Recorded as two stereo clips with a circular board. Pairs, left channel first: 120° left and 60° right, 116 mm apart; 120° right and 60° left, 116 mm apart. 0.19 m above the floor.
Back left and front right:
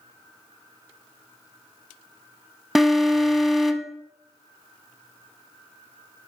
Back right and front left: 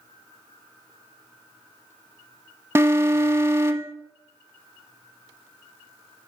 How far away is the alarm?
About 0.8 m.